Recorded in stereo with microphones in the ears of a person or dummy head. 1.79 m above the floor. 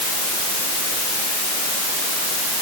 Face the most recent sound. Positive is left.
No sound to turn to.